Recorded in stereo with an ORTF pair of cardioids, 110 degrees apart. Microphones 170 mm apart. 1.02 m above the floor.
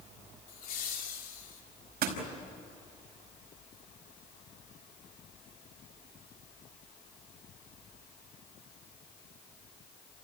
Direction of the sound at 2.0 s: 65° right.